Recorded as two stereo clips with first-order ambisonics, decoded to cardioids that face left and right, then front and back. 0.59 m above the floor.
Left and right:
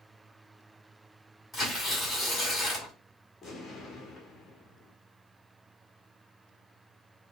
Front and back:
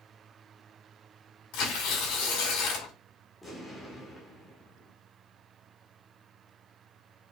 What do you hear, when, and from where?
1.5 s tearing paper: 10° left, 2.0 m
3.4 s an explosion: 60° left, 1.0 m